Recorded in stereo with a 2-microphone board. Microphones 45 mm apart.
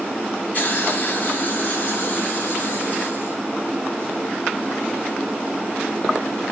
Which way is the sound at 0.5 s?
40° left (ahead or behind).